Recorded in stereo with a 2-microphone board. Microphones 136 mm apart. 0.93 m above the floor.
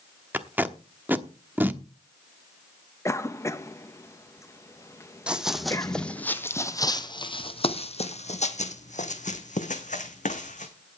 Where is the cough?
20° left (ahead or behind), 1.1 m.